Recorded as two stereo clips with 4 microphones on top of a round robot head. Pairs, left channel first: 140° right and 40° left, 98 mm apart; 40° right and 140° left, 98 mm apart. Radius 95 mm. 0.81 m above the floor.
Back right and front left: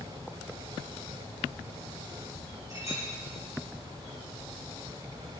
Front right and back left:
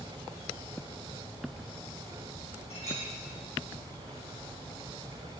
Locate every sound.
2.7 s a clink: 20° right, 4.5 m